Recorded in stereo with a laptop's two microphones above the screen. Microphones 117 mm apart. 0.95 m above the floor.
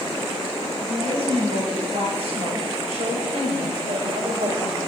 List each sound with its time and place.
0.8 s a woman speaking: 65° right (ahead or behind), 5.5 m; by 4.8 s 85° right, 3.5 m